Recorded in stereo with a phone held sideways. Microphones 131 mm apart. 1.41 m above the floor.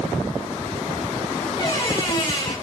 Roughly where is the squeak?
Left.